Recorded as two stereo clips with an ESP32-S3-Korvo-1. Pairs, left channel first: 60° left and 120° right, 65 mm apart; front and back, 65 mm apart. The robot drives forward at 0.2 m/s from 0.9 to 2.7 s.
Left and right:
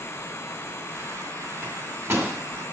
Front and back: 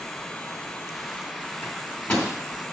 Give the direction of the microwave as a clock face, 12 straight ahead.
3 o'clock.